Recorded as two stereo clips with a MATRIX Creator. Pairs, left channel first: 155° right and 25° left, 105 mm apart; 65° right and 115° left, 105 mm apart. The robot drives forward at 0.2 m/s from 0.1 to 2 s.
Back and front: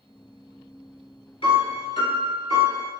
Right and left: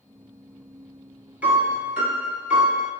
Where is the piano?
175° right, 0.8 m.